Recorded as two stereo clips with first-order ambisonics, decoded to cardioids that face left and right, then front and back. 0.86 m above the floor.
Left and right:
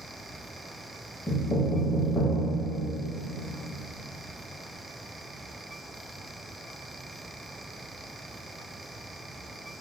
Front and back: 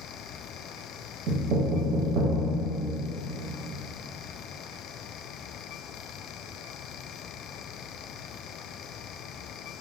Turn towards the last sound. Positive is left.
turn(degrees=165)